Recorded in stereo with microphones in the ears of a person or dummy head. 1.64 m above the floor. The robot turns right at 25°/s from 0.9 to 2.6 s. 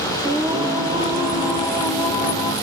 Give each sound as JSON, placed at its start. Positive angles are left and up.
{"t": 0.2, "sound": "singing", "azimuth_deg": -15, "distance_m": 0.6}